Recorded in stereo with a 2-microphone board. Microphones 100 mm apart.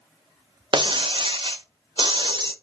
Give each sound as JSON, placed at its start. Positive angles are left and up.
{"t": 0.7, "sound": "breaking glass", "side_deg": -55, "distance_m": 0.8}